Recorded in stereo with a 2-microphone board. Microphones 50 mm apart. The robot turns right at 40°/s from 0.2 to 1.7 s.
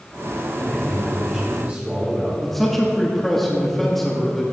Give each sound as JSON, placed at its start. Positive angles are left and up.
{"t": 0.6, "sound": "a man speaking", "azimuth_deg": 170, "distance_m": 2.5}
{"t": 2.4, "sound": "a man speaking", "side_deg": 5, "distance_m": 1.3}